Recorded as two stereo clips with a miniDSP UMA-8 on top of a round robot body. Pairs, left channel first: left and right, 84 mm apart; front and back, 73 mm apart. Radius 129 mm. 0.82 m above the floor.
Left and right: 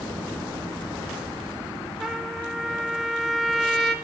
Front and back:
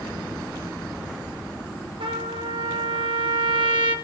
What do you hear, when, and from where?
2.0 s a trumpet: 175° right, 0.9 m